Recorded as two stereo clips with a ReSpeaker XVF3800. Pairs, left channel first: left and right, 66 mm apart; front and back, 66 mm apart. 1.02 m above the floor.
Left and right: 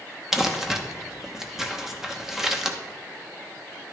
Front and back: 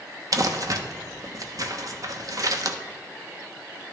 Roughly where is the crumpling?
Behind.